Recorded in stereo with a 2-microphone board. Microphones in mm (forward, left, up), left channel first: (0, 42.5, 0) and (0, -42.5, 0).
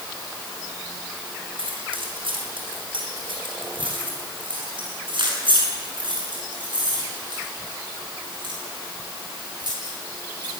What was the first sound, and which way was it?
Keys jangling, 85° right.